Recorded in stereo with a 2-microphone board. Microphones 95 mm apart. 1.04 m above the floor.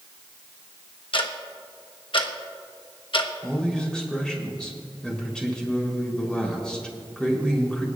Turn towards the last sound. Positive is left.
turn(degrees=10)  # may be behind; listen again after turning